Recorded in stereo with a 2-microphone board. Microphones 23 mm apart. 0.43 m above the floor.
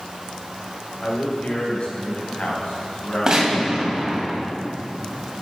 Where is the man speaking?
55° left (ahead or behind), 2.5 m; by 4.3 s 65° left (ahead or behind), 4.5 m.